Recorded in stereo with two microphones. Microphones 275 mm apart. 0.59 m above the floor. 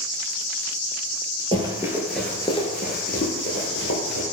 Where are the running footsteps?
20° right (ahead or behind), 0.7 m; by 4.2 s 55° left (ahead or behind), 1.1 m.